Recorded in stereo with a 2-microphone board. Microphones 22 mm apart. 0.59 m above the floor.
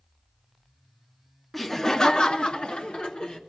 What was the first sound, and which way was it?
Laughter, 5° left (ahead or behind).